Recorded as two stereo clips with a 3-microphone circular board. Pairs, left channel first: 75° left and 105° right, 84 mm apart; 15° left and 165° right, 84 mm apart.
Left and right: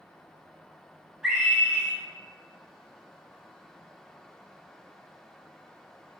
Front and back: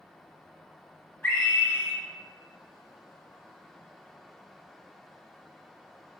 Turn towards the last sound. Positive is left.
turn(degrees=-35)